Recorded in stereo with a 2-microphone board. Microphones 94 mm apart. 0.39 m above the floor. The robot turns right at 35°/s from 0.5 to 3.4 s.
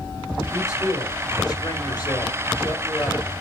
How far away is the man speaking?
About 2.5 m.